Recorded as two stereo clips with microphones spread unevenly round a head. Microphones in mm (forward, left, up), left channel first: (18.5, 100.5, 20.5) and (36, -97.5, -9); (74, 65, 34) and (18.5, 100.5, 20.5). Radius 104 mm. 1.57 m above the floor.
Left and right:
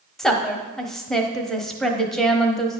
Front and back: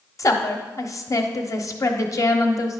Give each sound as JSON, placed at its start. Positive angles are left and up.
{"t": 0.2, "sound": "a woman speaking", "azimuth_deg": 10, "distance_m": 1.1}